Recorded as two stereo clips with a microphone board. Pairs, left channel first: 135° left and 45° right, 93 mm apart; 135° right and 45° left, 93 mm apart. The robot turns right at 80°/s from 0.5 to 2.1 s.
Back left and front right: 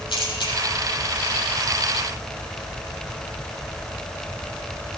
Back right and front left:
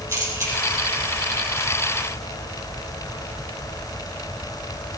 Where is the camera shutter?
105° left, 5.5 m; by 0.5 s 110° left, 5.5 m.